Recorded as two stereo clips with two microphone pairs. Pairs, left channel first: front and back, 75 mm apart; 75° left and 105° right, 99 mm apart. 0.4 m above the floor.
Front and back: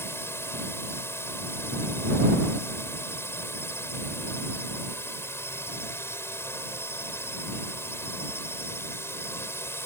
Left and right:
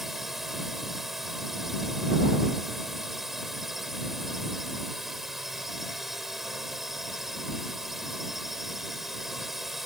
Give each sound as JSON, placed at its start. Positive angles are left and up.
{"t": 0.0, "sound": "a drone", "azimuth_deg": -20}